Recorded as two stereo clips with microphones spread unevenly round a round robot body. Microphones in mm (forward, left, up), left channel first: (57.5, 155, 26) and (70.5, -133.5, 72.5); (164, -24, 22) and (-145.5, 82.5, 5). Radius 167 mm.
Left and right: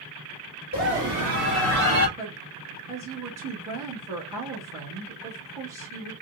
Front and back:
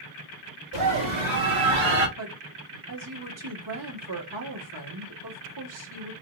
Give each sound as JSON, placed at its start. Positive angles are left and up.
{"t": 0.7, "sound": "a scream", "azimuth_deg": -165, "distance_m": 2.5}
{"t": 2.2, "sound": "a woman speaking", "azimuth_deg": -170, "distance_m": 1.9}